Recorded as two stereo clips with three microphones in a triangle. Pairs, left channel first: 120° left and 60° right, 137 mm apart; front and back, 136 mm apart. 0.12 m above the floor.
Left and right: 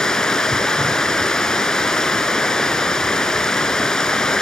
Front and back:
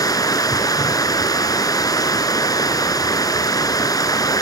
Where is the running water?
35° left, 1.3 m.